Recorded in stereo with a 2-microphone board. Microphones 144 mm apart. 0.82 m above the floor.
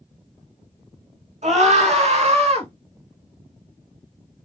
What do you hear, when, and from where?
1.4 s a scream: 60° right (ahead or behind), 2 m; by 2.7 s 50° right (ahead or behind), 1.6 m